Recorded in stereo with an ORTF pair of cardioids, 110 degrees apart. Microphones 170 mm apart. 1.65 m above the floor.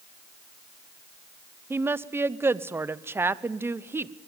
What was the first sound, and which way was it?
A woman speaking, 15° right.